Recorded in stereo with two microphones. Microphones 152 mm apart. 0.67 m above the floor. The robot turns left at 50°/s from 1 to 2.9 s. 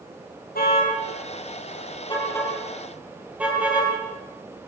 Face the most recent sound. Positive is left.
turn(degrees=-10)  # may be behind; listen again after turning